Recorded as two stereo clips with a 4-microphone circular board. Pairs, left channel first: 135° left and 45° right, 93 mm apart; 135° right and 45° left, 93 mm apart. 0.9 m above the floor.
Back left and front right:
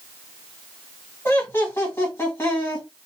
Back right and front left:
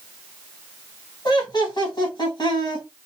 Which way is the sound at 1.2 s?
165° right.